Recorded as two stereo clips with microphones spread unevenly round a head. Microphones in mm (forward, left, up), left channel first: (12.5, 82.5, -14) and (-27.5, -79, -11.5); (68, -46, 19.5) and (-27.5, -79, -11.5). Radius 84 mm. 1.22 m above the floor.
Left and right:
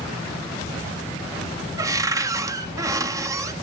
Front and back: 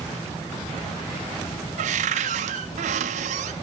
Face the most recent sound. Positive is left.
turn(degrees=-175)